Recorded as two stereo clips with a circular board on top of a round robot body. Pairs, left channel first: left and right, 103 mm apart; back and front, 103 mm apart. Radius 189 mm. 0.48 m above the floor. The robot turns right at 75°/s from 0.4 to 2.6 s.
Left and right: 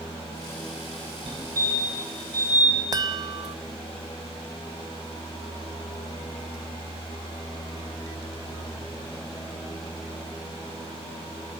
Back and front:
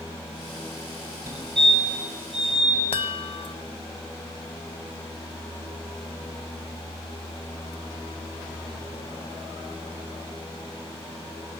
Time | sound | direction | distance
1.3 | a fire alarm | 55° right | 8 m
2.9 | a chime | 145° right | 0.7 m